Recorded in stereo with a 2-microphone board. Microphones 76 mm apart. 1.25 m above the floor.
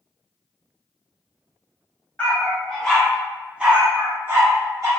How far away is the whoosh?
No whoosh in this recording.